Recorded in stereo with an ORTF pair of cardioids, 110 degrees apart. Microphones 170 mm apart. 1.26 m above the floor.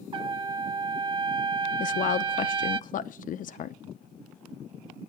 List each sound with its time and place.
0.1 s a trumpet: 30° right, 0.5 m
1.8 s a woman speaking: 55° left, 0.7 m